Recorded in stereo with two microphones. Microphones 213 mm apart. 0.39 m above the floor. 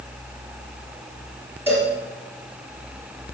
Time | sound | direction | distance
1.7 | a cowbell | 10° right (ahead or behind) | 4 m